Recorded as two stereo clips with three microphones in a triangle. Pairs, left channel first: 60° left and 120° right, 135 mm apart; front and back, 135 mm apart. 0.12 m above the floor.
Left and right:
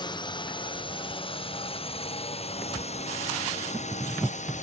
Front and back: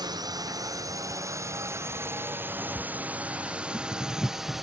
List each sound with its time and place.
0.0 s a drone: 115° left; by 4.6 s 90° left